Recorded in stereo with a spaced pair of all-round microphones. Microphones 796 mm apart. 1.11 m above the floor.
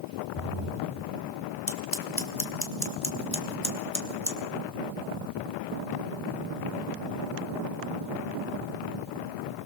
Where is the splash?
40° left (ahead or behind), 5 m.